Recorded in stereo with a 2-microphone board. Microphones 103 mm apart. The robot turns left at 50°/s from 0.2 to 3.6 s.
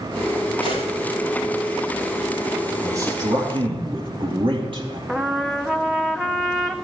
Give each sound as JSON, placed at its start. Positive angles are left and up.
{"t": 0.6, "sound": "a gunshot", "side_deg": 75, "distance_m": 7.0}
{"t": 2.8, "sound": "a man speaking", "azimuth_deg": -35, "distance_m": 3.5}
{"t": 5.1, "sound": "a trumpet", "side_deg": -5, "distance_m": 1.0}